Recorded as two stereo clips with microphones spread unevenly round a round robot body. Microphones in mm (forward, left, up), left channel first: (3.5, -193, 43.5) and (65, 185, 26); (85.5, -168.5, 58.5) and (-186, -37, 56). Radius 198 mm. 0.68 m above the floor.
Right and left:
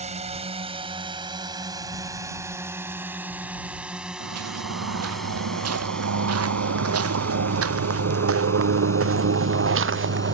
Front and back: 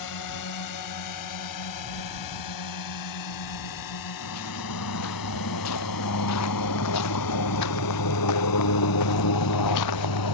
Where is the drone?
10° left; by 10.3 s 20° right.